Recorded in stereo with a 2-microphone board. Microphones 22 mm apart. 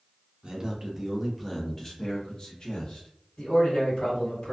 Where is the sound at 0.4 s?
35° right (ahead or behind), 0.7 m; by 3.1 s 55° left (ahead or behind), 1.1 m.